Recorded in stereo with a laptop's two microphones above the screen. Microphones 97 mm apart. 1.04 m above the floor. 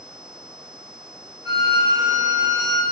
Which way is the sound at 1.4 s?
30° right (ahead or behind).